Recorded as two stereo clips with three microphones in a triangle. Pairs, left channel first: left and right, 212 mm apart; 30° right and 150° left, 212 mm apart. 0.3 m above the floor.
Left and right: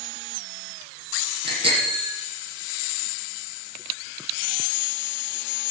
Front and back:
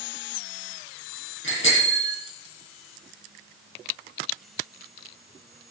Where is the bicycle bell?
55° right, 6.5 m.